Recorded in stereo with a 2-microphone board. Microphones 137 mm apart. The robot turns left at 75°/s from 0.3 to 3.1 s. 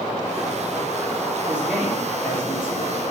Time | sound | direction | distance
1.5 | a man speaking | 165° right | 3 m